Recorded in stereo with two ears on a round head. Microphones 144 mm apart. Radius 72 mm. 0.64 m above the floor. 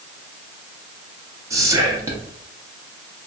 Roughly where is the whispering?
Centre.